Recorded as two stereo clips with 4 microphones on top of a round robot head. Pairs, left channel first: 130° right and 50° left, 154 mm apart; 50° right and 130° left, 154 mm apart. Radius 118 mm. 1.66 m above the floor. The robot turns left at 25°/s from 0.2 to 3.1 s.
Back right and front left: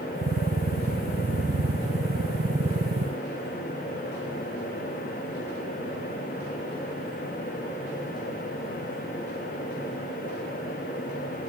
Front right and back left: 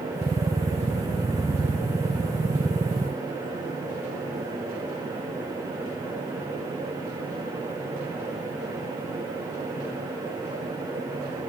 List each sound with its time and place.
Only background noise.